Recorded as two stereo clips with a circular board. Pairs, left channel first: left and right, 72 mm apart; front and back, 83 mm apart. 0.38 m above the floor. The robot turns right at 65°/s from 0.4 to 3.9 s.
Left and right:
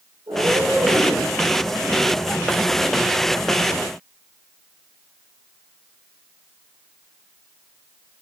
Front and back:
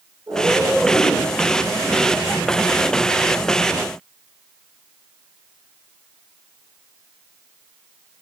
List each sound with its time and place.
0.3 s a cat meowing: 125° right, 8 m; by 1.3 s 65° right, 8 m